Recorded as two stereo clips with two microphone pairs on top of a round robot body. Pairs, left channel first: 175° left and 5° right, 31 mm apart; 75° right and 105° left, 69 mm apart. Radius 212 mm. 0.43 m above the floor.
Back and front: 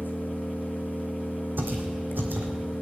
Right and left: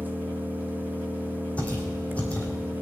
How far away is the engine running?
About 1.3 m.